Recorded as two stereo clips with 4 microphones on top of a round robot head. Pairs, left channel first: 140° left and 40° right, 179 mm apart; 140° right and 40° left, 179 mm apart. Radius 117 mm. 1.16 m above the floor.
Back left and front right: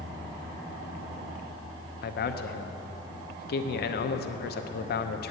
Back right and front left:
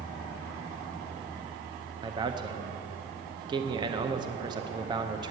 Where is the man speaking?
105° left, 0.7 m.